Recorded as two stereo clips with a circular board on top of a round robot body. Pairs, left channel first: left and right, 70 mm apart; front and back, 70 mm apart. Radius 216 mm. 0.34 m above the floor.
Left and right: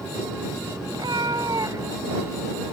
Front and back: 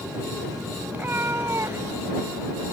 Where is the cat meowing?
115° right; by 2.7 s 145° right.